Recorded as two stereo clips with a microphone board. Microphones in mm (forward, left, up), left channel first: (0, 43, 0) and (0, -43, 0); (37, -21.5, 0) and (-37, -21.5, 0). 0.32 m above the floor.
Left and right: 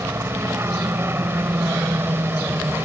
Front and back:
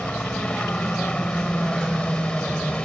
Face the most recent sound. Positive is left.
turn(degrees=-60)